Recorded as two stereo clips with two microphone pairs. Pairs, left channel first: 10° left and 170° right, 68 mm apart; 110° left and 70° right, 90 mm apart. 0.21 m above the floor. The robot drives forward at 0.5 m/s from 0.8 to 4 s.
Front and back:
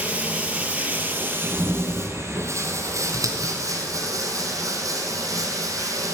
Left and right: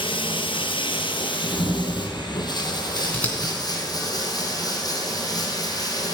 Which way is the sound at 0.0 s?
120° left.